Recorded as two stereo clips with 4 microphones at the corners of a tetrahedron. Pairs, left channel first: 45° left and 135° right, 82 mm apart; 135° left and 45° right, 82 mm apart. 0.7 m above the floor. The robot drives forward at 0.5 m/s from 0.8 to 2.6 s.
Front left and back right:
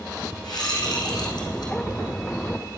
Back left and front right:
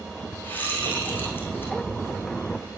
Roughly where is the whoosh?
Left.